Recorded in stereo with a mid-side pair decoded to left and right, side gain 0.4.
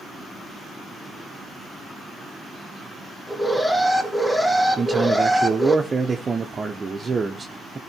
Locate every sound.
3.3 s an alarm: 5° left, 2 m
4.8 s a man speaking: 35° right, 1.2 m